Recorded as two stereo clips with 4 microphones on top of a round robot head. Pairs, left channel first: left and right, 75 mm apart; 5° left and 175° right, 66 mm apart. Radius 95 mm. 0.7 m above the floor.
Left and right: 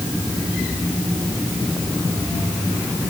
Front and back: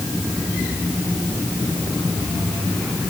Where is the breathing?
I don't hear breathing.